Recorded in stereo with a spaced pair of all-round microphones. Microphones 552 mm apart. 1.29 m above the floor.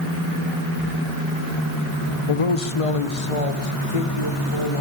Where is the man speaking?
70° left (ahead or behind), 0.7 m; by 4.8 s 80° left, 2 m.